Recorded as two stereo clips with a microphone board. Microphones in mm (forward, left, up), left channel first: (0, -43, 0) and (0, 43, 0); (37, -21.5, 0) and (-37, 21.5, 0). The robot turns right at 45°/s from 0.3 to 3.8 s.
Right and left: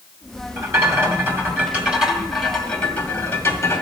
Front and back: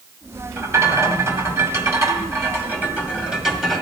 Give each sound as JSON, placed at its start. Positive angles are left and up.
{"t": 0.6, "sound": "a rattle", "azimuth_deg": 100, "distance_m": 1.8}